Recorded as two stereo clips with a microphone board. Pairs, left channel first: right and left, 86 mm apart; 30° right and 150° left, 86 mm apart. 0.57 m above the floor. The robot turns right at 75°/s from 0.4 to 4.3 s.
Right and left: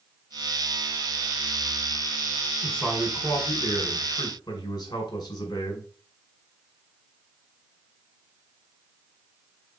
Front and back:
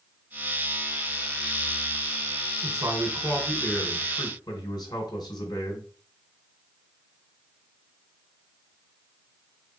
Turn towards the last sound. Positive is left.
turn(degrees=-60)